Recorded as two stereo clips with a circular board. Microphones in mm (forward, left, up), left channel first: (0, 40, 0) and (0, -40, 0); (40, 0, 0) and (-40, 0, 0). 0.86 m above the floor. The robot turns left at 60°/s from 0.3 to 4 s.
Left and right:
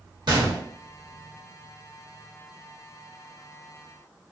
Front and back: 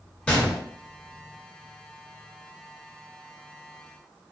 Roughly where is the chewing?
I don't hear chewing.